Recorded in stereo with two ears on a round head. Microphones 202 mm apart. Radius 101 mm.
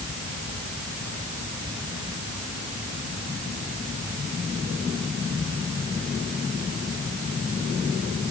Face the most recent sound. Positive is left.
No sound to turn to.